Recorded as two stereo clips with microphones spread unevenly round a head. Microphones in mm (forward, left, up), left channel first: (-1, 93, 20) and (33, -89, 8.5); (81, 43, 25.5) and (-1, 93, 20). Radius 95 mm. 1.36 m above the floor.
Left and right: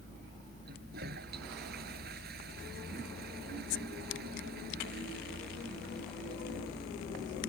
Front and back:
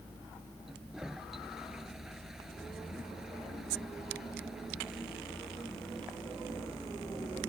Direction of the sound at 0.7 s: 125° right.